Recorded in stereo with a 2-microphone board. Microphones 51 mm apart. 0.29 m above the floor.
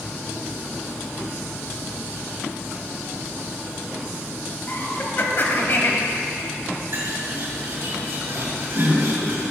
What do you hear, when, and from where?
4.7 s laughter: 45° left (ahead or behind), 1.4 m
6.9 s a bird: 50° right (ahead or behind), 2 m